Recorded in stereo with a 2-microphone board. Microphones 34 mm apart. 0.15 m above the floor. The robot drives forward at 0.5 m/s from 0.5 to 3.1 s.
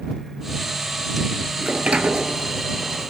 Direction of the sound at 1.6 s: 45° right (ahead or behind).